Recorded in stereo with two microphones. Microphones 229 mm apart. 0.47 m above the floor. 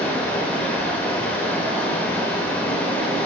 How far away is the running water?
About 0.7 m.